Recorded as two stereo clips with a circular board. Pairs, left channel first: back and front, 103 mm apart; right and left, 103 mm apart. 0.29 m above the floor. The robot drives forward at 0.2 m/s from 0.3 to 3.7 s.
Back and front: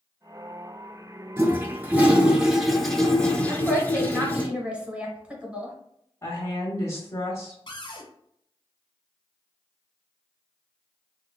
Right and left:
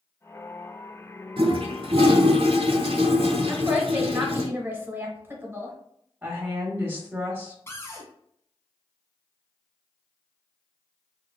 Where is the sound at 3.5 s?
55° left, 0.9 m; by 5.8 s 60° left, 0.9 m.